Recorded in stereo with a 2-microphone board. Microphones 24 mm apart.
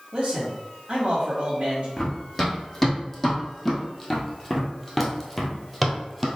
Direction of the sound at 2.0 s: 5° left (ahead or behind).